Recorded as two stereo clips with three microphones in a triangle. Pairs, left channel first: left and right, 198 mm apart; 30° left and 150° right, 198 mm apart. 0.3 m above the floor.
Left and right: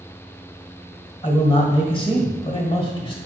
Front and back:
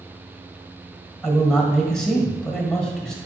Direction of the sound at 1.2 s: 115° left.